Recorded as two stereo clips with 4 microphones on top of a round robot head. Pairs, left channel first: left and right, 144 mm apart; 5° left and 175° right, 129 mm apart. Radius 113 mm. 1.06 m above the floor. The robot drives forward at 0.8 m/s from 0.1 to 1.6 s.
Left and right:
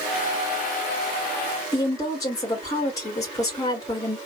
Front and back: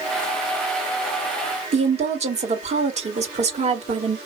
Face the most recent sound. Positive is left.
turn(degrees=160)